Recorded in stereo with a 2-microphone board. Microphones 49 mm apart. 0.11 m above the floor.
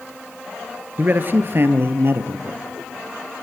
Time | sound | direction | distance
1.0 | a man speaking | 40° right (ahead or behind) | 1.4 m